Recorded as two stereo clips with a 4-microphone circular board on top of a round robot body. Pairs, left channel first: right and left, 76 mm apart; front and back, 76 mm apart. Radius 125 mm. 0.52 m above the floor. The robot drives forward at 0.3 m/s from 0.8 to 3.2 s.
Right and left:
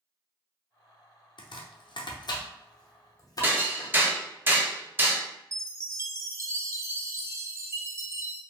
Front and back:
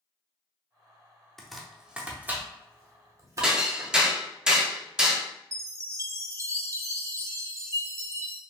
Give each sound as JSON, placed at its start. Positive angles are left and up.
{"t": 1.4, "sound": "chopping", "azimuth_deg": -85, "distance_m": 0.6}
{"t": 3.4, "sound": "hammering", "azimuth_deg": 110, "distance_m": 0.9}
{"t": 5.5, "sound": "a chime", "azimuth_deg": 135, "distance_m": 0.6}